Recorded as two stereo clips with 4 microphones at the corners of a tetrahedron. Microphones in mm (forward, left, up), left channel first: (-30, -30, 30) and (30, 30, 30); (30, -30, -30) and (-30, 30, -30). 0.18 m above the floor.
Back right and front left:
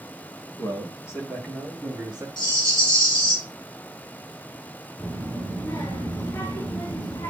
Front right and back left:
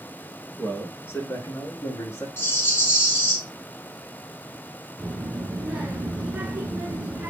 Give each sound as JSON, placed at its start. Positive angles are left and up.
{"t": 0.6, "sound": "a man speaking", "azimuth_deg": -115, "distance_m": 2.5}
{"t": 2.4, "sound": "a rattle", "azimuth_deg": -110, "distance_m": 3.0}
{"t": 5.0, "sound": "a child speaking", "azimuth_deg": -165, "distance_m": 1.5}